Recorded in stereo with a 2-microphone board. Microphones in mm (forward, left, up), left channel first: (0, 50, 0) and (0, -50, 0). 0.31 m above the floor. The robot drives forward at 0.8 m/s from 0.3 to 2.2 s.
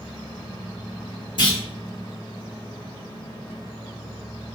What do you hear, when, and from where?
1.4 s a clunk: 55° left (ahead or behind), 1.6 m